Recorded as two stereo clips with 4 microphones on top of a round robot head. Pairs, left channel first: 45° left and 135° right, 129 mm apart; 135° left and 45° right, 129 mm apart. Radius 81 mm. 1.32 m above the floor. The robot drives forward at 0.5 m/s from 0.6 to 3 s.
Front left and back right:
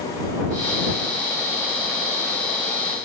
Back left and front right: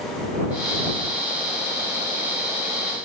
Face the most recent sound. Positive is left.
No sound to turn to.